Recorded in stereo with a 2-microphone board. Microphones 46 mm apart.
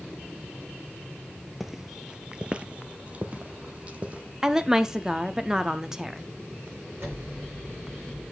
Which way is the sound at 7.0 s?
65° right (ahead or behind).